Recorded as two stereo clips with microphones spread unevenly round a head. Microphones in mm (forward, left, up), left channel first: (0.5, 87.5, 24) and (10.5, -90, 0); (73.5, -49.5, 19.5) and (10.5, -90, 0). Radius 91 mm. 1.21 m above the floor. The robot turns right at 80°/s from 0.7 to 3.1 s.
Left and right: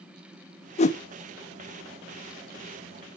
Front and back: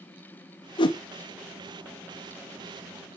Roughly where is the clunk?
No clunk in this recording.